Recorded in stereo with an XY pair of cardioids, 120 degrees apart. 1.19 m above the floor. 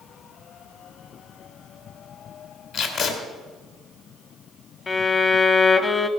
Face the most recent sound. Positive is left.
turn(degrees=30)